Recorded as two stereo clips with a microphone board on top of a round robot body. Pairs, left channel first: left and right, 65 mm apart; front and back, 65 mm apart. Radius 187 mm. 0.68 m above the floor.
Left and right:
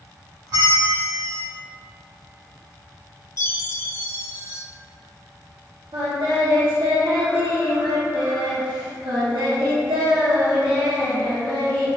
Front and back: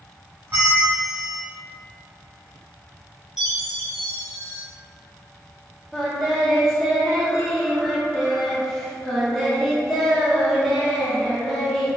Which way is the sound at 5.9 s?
90° right.